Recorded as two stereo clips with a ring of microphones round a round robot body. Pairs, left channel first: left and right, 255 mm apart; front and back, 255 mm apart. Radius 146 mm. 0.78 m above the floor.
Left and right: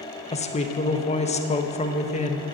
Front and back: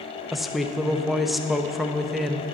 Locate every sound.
0.3 s a woman speaking: 90° left, 1.0 m